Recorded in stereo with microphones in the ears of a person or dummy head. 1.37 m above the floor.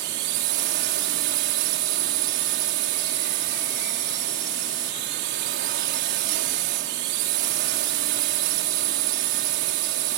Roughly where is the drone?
Right.